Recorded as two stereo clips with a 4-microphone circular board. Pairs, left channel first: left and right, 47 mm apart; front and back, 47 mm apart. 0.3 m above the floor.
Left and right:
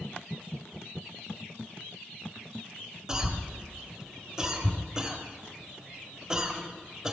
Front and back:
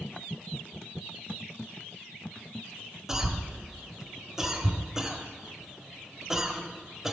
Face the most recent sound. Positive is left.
turn(degrees=-130)